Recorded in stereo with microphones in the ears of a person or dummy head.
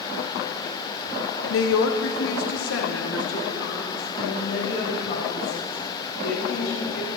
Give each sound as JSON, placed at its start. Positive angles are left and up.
{"t": 1.5, "sound": "a woman speaking", "side_deg": 80, "distance_m": 1.0}